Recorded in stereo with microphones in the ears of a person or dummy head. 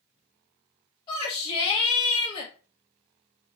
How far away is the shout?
About 1.8 m.